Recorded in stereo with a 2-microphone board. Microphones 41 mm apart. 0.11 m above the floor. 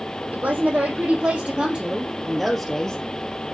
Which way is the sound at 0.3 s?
45° right (ahead or behind).